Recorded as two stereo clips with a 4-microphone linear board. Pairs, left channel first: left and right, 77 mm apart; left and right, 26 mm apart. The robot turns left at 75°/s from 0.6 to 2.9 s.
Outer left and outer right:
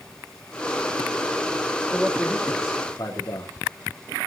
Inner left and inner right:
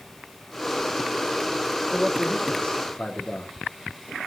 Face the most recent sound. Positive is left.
turn(degrees=135)